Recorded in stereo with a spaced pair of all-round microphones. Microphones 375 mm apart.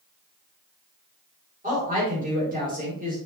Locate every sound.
1.6 s a woman speaking: 20° right (ahead or behind), 3.5 m